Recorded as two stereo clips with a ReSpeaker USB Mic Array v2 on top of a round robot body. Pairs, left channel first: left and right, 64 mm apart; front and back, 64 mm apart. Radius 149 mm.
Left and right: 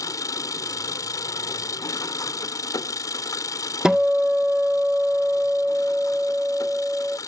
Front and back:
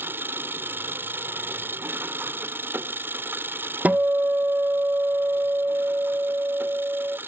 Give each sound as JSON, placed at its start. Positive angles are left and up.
{"t": 0.0, "sound": "an engine running", "azimuth_deg": 125}
{"t": 3.9, "sound": "a guitar", "azimuth_deg": -160}